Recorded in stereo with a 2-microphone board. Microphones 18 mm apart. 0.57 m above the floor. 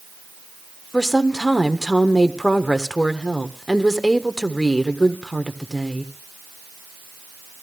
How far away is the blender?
No blender in this recording.